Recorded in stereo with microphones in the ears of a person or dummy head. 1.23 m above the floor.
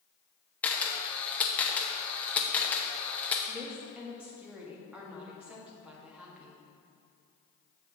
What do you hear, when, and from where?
0.6 s a camera shutter: 10° left (ahead or behind), 0.7 m
3.5 s a woman speaking: 5° right (ahead or behind), 1.6 m